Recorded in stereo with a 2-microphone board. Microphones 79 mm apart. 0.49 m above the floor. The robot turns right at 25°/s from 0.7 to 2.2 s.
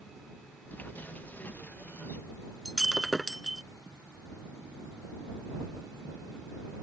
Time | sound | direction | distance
2.6 | breaking glass | centre (ahead or behind) | ?